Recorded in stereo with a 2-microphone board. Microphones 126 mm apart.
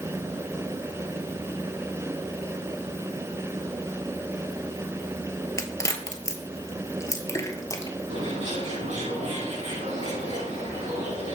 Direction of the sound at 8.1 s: 65° right (ahead or behind).